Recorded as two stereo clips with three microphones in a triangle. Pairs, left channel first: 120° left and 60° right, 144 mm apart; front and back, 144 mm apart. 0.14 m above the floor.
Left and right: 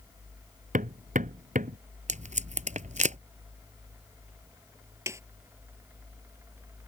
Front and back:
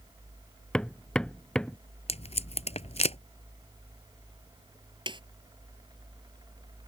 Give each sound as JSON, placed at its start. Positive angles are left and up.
{"t": 0.7, "sound": "hammering", "azimuth_deg": -85}
{"t": 2.1, "sound": "tape being pulled", "azimuth_deg": -35}
{"t": 5.1, "sound": "a snare drum", "azimuth_deg": -130}